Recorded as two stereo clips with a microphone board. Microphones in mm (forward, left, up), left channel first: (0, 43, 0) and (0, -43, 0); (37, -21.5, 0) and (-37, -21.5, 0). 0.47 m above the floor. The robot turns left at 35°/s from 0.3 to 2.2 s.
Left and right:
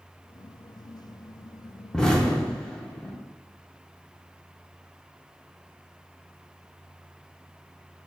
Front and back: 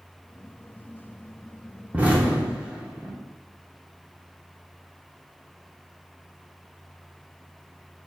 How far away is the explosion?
About 0.7 m.